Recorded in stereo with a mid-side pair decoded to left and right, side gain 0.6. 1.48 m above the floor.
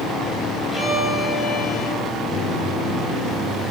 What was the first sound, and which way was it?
A violin, 10° left.